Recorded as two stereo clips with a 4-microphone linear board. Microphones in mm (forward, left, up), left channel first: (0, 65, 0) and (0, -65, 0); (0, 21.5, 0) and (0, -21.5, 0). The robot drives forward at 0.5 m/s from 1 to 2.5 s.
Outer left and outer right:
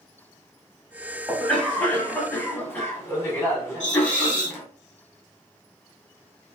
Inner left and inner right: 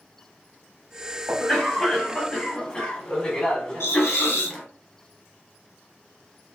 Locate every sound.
1.3 s a cough: 10° left (ahead or behind), 1.2 m; by 4.7 s 15° left (ahead or behind), 0.8 m
3.8 s a hiss: 65° left (ahead or behind), 0.9 m